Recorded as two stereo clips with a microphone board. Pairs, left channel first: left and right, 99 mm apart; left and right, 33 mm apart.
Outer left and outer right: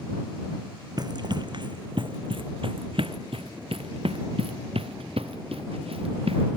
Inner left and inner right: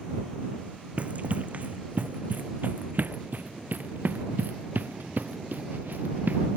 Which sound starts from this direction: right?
Running footsteps, at 1.0 s.